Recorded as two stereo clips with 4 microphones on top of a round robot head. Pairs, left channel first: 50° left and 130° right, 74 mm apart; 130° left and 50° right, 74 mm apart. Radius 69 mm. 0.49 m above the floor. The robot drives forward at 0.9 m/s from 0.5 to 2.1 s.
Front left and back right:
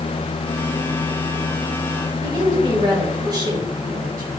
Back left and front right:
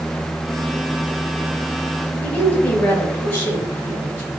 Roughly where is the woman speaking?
Behind.